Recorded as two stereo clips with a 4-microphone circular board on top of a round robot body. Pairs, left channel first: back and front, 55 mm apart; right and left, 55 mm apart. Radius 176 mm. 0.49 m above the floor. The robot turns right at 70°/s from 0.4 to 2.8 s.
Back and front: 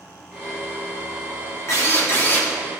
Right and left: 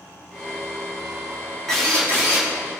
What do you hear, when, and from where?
1.7 s a drill: 170° right, 2.5 m; by 2.5 s 110° right, 2.5 m